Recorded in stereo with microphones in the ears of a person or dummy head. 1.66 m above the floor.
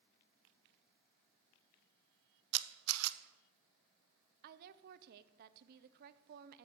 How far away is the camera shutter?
About 0.9 m.